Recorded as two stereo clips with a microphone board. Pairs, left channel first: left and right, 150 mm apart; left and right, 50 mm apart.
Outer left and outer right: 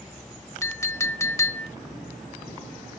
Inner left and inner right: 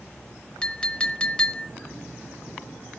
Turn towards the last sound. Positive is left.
turn(degrees=20)  # may be behind; listen again after turning